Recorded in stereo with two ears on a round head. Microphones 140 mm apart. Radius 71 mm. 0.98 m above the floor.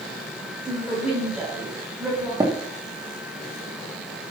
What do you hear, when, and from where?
0.7 s a woman speaking: 5° right (ahead or behind), 6.5 m
2.4 s tapping: 25° right (ahead or behind), 1.9 m